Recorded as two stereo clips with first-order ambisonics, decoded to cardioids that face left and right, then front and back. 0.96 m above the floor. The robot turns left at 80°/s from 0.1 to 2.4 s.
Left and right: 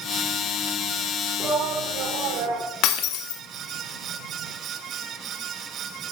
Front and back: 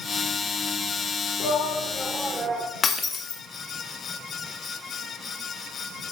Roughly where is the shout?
Ahead right.